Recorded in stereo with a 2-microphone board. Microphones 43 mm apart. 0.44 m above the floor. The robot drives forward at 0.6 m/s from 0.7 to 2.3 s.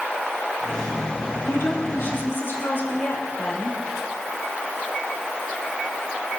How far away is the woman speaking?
About 4.5 m.